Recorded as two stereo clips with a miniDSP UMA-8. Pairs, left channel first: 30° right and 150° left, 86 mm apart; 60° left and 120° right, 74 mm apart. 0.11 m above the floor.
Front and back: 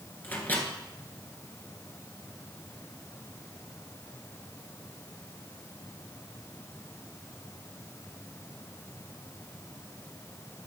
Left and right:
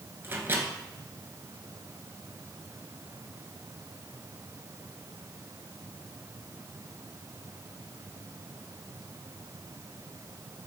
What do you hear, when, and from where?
0.2 s a microwave: 85° right, 1.6 m